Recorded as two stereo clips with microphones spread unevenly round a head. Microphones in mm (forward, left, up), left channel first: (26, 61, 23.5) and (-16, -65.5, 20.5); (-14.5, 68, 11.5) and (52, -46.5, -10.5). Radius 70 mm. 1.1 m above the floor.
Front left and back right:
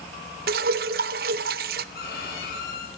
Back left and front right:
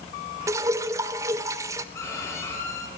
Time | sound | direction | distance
0.5 | dripping | 130° right | 0.5 m
1.9 | a violin | 50° left | 5 m